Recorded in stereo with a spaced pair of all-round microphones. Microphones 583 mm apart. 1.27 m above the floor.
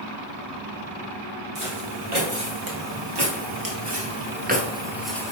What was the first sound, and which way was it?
Footsteps, 60° right (ahead or behind).